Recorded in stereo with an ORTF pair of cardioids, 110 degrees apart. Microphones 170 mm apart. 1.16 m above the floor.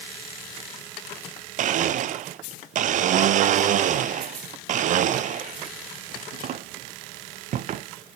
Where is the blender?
50° right, 0.5 m.